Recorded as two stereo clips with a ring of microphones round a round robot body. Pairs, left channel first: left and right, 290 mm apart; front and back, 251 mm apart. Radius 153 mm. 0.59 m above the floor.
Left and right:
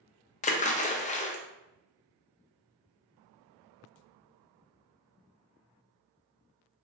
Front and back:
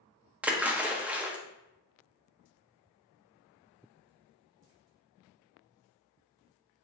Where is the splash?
105° left, 0.5 m.